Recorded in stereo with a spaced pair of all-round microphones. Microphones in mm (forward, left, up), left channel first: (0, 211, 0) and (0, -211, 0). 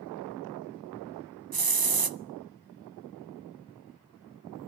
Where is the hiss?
55° right (ahead or behind), 0.6 m.